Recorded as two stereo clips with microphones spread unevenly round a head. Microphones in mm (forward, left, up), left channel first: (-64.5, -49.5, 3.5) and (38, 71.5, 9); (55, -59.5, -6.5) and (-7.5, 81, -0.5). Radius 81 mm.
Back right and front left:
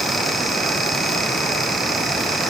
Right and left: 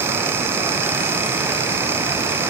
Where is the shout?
I don't hear a shout.